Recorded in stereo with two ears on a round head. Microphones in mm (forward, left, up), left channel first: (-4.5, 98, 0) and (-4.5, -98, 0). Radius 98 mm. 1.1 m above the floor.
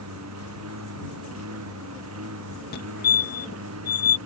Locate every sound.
0.0 s a lawn mower: 80° right; by 4.3 s 75° right (ahead or behind)
2.7 s a fire alarm: 50° left (ahead or behind)